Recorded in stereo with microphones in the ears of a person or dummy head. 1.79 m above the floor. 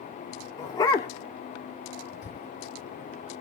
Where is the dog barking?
20° left (ahead or behind), 1.6 m.